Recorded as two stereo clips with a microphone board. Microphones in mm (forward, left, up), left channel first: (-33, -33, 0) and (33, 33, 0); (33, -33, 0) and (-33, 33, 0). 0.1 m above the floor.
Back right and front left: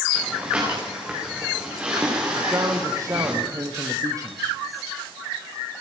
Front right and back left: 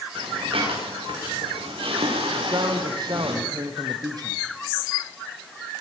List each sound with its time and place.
0.1 s breathing: 120° left, 10 m
2.3 s a man speaking: 95° left, 3.5 m